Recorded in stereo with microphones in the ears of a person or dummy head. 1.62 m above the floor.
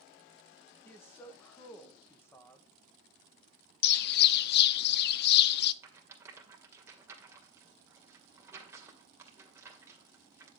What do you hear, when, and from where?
0.8 s a man speaking: 15° left (ahead or behind), 1.6 m
3.8 s a bird: 65° left (ahead or behind), 0.5 m
5.8 s a rattle: 20° right (ahead or behind), 2.5 m